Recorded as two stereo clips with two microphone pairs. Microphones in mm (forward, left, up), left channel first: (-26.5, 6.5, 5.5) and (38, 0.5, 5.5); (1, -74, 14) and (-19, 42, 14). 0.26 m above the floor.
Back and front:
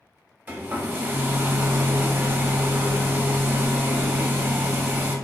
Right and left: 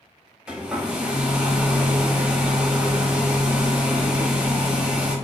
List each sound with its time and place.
0.5 s a hair dryer: 25° left, 0.7 m